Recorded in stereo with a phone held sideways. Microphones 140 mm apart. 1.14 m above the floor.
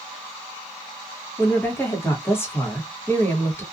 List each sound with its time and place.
1.4 s a woman speaking: 15° left (ahead or behind), 1.0 m